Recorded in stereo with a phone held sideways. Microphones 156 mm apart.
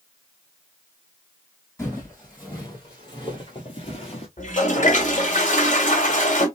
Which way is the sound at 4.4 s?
50° left (ahead or behind).